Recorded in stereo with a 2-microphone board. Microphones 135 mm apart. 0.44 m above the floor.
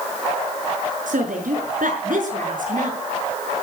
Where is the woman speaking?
75° right (ahead or behind), 6 m; by 3.0 s 80° right, 6 m.